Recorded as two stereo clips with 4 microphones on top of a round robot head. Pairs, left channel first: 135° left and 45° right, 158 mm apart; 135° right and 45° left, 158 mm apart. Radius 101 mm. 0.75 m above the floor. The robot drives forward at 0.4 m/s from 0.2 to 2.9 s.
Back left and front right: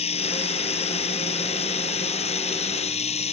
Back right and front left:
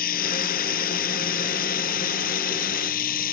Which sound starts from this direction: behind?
Running water, at 0.0 s.